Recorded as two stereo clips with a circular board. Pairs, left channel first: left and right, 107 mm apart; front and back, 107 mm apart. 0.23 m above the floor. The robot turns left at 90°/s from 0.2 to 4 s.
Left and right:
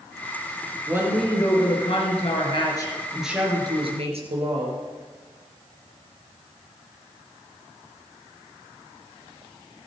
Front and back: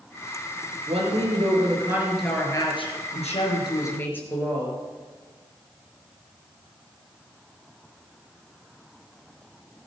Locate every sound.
0.9 s a woman speaking: 150° right, 4 m; by 4.8 s 75° right, 4 m